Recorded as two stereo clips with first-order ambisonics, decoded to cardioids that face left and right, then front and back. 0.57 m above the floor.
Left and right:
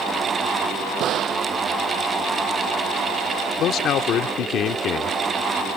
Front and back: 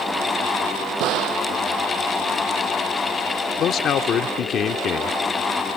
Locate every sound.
1.0 s a gunshot: 140° right
3.6 s a man speaking: 50° left